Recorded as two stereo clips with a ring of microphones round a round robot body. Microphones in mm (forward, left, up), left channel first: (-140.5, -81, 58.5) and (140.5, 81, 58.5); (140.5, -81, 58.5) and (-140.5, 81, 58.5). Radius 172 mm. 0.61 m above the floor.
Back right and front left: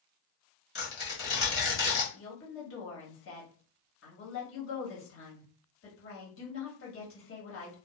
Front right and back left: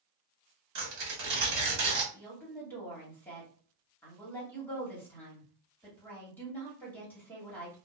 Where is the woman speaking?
110° right, 1.5 m.